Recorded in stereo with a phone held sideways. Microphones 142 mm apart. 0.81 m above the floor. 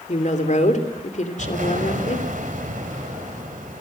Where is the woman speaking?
60° left (ahead or behind), 3 m.